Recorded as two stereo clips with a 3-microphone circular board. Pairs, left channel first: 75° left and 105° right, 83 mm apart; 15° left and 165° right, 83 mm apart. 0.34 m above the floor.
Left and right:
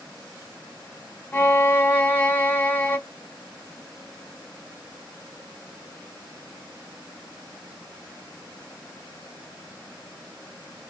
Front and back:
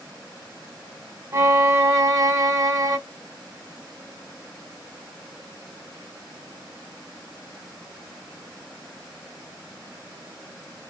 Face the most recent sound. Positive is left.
turn(degrees=140)